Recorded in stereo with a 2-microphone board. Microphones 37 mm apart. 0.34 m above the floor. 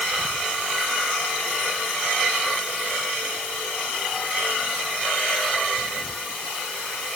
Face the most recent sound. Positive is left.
No sound to turn to.